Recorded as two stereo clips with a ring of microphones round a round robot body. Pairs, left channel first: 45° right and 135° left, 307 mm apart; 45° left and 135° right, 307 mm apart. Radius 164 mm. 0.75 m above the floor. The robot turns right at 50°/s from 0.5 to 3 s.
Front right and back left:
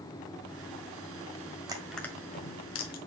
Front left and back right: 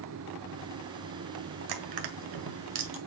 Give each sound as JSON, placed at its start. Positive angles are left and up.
{"t": 1.7, "sound": "crushing", "azimuth_deg": -145, "distance_m": 1.6}